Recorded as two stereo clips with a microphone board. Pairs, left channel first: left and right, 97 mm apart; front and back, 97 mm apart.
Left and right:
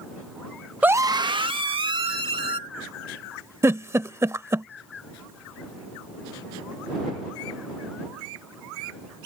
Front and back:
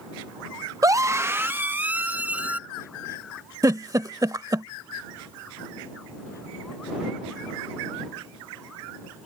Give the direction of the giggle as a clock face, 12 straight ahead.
5 o'clock.